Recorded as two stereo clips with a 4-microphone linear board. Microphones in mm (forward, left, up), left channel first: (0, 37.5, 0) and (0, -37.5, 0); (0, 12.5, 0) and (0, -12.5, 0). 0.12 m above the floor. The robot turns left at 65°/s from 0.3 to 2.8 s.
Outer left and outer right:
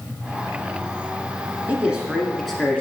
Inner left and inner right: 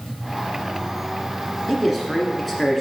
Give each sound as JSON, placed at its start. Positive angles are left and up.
{"t": 1.7, "sound": "a man speaking", "side_deg": -20, "distance_m": 1.3}